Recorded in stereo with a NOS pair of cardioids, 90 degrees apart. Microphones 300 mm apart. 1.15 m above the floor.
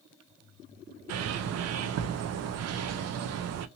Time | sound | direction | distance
1.1 | a bird | 55° right | 0.6 m